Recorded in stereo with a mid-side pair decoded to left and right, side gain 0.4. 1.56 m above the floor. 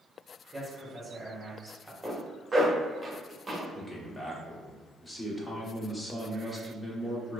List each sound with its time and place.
0.5 s a man speaking: 20° right, 1.7 m
2.0 s a zipper: 20° right, 1.4 m
3.7 s a man speaking: 20° left, 1.2 m